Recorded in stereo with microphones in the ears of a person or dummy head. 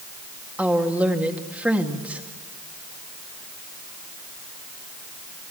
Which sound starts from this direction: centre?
A woman speaking, at 0.6 s.